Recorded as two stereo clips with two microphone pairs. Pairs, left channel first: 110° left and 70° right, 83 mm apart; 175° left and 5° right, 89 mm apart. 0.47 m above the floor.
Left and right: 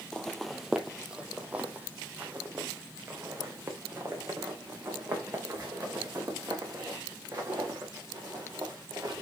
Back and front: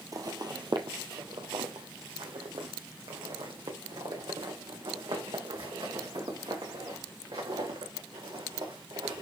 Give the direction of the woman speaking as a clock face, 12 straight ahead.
I don't hear a woman speaking.